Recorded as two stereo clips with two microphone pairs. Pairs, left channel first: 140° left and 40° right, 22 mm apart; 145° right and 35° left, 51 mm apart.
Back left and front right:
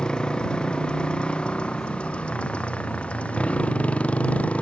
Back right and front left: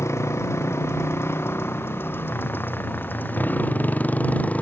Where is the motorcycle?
165° right; by 4.6 s 160° left.